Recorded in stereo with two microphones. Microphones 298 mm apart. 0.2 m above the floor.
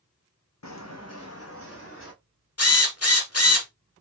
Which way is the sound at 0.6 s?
65° left (ahead or behind).